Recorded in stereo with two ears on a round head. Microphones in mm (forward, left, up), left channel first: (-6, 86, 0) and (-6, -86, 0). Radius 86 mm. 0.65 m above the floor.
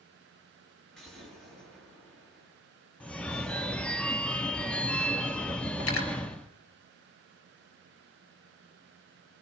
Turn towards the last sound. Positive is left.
turn(degrees=85)